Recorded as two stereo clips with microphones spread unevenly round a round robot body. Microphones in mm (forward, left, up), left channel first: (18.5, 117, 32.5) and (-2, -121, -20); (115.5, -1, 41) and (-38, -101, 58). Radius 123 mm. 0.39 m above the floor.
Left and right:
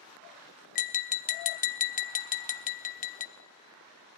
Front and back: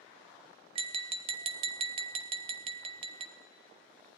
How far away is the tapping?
About 0.6 m.